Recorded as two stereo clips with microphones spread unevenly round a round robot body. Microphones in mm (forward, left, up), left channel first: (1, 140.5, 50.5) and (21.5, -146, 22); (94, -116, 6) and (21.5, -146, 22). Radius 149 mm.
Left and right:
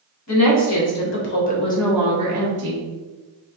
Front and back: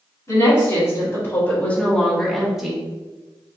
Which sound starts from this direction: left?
A woman speaking, at 0.3 s.